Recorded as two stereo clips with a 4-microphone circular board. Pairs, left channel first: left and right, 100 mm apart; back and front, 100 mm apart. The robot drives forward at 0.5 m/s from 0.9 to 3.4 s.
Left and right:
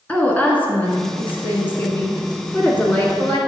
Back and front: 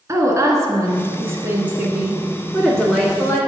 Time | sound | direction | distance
0.1 | a woman speaking | 30° left | 1.6 m